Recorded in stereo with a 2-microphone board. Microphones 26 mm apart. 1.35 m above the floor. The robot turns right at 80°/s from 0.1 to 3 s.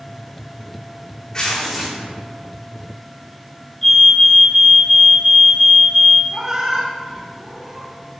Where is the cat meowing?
20° right (ahead or behind), 1.3 m.